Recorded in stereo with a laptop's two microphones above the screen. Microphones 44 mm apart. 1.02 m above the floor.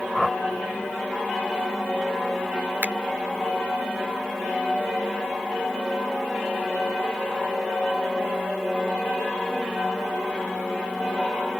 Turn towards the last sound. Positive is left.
turn(degrees=-45)  # may be behind; listen again after turning